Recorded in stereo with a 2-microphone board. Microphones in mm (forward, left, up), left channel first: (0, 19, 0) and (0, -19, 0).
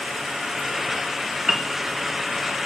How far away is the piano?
About 0.8 m.